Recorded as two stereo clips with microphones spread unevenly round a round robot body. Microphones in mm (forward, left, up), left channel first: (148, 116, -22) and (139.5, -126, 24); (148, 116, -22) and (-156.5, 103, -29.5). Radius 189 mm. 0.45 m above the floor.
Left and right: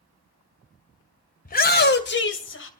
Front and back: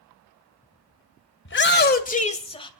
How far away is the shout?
About 2 m.